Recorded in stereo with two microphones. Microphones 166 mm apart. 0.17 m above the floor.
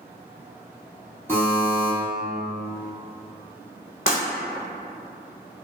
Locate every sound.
1.3 s a buzzer: 15° left (ahead or behind), 1.7 m
4.1 s breaking glass: 50° left (ahead or behind), 1.0 m